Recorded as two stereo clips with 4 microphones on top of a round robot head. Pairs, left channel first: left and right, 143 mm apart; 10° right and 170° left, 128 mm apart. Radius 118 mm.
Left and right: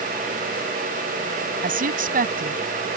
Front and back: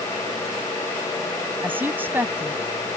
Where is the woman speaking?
110° right.